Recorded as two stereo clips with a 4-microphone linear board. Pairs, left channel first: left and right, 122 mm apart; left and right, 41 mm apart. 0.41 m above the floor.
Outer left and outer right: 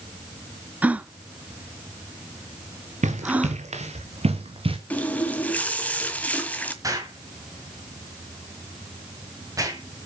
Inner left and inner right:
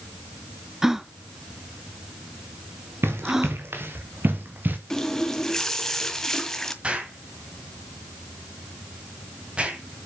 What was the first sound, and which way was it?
A gasp, 10° right (ahead or behind).